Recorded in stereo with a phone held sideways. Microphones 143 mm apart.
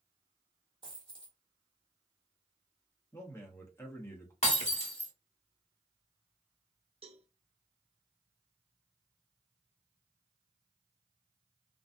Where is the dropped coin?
35° right (ahead or behind), 1.7 m.